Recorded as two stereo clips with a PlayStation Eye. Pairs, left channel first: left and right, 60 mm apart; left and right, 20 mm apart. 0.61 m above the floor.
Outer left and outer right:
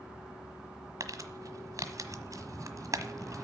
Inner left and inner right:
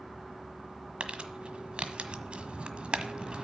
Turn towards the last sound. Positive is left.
turn(degrees=-60)  # may be behind; listen again after turning